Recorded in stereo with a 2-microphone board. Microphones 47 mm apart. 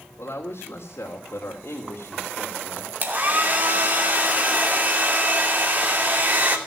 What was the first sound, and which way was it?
A woman speaking, 75° left (ahead or behind).